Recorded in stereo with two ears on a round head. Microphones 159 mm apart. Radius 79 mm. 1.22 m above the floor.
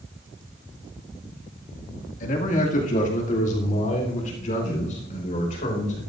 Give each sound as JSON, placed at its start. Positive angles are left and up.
{"t": 2.2, "sound": "a man speaking", "side_deg": 50, "distance_m": 1.8}